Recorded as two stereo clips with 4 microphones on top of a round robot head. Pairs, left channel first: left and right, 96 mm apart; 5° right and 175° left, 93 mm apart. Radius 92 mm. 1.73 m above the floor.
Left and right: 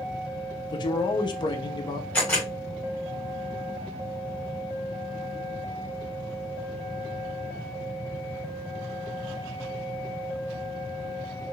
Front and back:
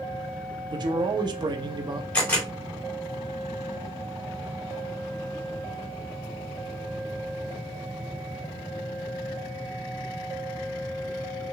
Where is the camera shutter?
30° left, 1.6 m.